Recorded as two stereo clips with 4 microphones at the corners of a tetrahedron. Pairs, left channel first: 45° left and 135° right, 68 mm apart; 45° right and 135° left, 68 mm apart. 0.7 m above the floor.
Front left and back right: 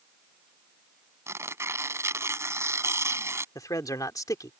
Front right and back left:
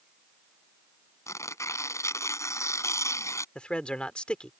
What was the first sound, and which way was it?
Tearing paper, 90° right.